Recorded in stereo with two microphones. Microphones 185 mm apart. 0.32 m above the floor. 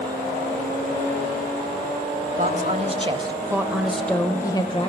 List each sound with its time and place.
2.4 s a woman speaking: 45° right (ahead or behind), 1.4 m; by 4.9 s 30° left (ahead or behind), 1.1 m